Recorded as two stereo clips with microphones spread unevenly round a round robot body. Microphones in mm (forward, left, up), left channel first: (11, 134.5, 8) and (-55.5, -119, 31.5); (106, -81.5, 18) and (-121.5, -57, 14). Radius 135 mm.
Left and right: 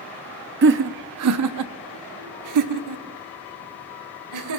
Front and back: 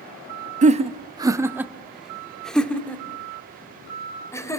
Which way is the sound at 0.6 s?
140° right.